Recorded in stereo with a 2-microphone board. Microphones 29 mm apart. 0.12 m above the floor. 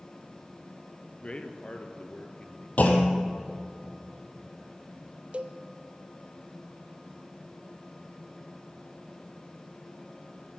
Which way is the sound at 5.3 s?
45° right (ahead or behind).